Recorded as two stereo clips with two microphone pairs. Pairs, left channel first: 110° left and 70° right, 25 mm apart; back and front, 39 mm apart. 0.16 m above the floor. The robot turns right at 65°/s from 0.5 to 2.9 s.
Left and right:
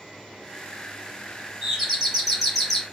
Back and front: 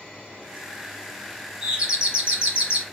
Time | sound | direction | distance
1.6 | a doorbell | 50° right | 1.7 m